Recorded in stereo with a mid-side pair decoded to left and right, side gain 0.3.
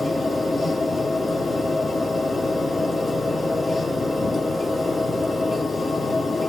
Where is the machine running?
40° left, 2.5 m.